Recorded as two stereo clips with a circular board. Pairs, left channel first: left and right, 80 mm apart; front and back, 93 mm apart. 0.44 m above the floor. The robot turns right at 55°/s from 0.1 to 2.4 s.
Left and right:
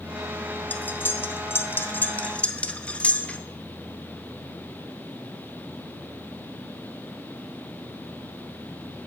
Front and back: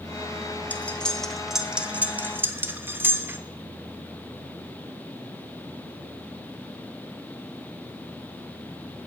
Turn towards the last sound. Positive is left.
turn(degrees=145)